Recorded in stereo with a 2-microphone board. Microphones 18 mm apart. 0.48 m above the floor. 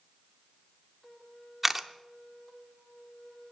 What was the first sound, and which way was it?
A camera shutter, 10° right (ahead or behind).